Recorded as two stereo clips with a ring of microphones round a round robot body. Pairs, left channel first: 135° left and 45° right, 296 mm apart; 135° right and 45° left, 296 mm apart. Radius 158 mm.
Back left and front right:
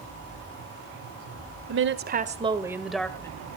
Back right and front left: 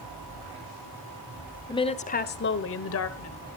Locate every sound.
1.7 s a woman speaking: 65° right, 1.6 m; by 3.3 s 145° right, 1.9 m